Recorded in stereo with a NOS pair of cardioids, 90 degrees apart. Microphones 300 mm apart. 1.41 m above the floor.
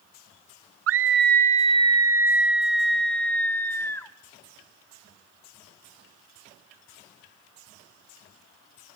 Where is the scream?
50° right, 0.6 m; by 4.1 s 10° left, 2 m.